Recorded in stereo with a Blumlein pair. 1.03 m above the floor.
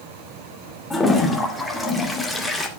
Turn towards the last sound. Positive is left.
turn(degrees=5)